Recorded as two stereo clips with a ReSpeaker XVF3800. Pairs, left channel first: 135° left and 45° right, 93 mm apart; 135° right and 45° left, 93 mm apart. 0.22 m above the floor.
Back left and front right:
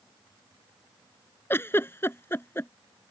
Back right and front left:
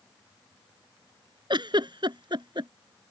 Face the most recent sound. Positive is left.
turn(degrees=70)